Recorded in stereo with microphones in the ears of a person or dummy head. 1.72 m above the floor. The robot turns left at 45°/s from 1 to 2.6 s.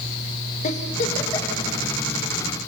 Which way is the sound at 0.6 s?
45° left (ahead or behind).